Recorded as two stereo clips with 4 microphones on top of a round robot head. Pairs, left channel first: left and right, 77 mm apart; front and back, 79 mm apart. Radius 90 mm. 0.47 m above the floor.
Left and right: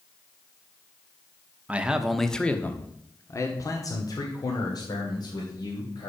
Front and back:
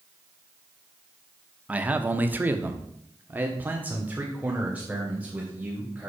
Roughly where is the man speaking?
Behind right.